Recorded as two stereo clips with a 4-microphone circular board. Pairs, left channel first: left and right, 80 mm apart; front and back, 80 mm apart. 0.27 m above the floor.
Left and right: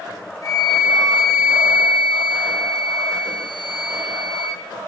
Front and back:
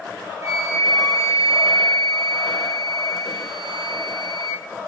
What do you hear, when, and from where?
0.4 s a flute: 130° left, 0.8 m